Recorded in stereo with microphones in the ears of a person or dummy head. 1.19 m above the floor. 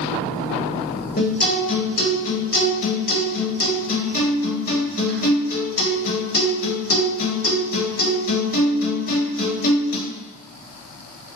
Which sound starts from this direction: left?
A guitar, at 1.2 s.